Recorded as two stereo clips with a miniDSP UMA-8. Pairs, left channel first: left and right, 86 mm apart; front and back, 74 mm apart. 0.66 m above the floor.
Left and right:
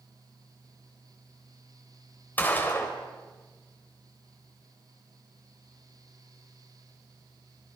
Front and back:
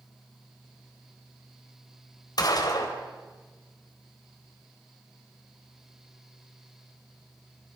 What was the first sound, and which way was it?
A gunshot, 20° left.